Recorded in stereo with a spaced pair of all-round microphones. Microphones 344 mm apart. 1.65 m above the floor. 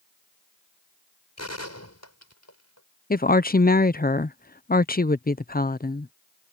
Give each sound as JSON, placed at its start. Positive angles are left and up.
{"t": 1.4, "sound": "a gunshot", "side_deg": 50}
{"t": 3.1, "sound": "a woman speaking", "side_deg": 25}